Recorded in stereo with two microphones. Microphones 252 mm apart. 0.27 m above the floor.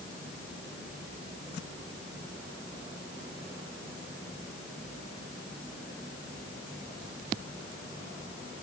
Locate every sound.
Only background noise.